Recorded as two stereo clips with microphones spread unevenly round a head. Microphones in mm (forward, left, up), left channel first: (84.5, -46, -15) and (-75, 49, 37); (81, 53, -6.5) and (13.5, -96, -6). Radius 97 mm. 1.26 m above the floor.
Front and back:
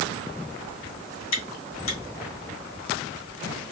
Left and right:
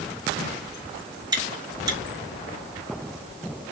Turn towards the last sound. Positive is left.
turn(degrees=-55)